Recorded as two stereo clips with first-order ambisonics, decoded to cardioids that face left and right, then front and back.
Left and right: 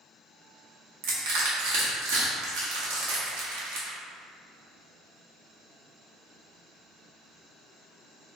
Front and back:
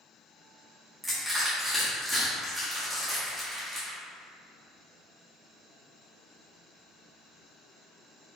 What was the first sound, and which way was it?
Crushing, 95° right.